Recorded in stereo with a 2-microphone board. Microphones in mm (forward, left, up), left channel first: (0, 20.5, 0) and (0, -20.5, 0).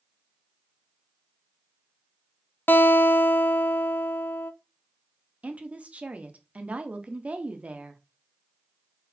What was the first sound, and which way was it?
A guitar, 60° left (ahead or behind).